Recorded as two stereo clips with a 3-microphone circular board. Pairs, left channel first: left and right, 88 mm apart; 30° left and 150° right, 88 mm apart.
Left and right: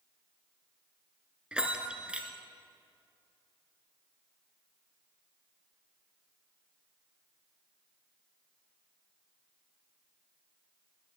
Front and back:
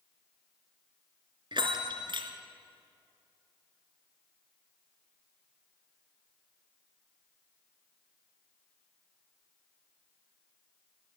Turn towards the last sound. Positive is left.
turn(degrees=-170)